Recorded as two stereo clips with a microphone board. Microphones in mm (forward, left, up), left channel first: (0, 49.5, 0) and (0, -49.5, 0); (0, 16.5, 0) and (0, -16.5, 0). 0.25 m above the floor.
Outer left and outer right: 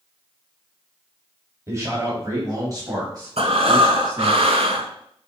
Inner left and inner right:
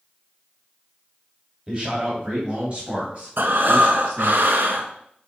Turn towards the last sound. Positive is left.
turn(degrees=-80)